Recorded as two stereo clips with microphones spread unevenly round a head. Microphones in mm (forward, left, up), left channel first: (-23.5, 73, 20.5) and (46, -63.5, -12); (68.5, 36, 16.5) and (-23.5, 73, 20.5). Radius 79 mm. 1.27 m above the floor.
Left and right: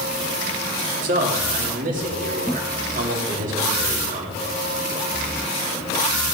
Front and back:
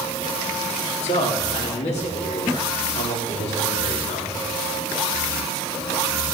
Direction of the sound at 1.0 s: 25° right.